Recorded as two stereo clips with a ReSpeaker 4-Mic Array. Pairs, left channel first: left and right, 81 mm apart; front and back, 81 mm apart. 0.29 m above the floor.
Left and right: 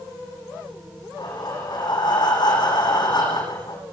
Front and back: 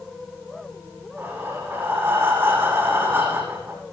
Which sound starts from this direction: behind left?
Breathing, at 1.2 s.